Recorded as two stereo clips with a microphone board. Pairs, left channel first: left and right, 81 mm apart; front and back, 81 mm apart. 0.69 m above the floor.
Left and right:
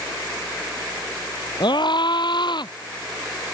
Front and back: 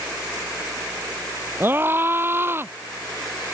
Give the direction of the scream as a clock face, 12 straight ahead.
8 o'clock.